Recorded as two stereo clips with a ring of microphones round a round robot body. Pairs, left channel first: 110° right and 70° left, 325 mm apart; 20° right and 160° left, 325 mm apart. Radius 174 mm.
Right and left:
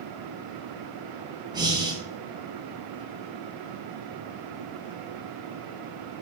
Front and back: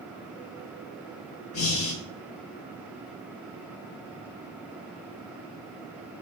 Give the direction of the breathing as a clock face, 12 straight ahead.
12 o'clock.